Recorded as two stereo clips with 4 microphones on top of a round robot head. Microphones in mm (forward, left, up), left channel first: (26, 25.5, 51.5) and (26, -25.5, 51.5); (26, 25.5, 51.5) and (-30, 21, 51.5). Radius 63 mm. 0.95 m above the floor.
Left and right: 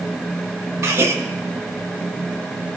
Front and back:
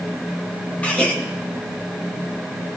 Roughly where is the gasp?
Ahead right.